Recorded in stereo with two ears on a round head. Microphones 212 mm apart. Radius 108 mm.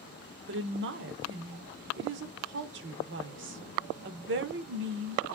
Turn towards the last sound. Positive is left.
turn(degrees=-50)  # may be behind; listen again after turning